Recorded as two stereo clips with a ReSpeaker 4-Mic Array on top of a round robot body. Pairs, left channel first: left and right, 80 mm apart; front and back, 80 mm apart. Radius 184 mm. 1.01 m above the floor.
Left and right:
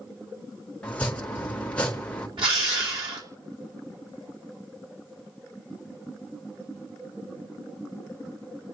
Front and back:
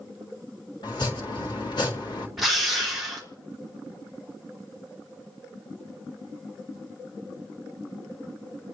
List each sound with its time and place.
0.8 s chopping: 15° left, 2.0 m
2.4 s a drill: 90° right, 3 m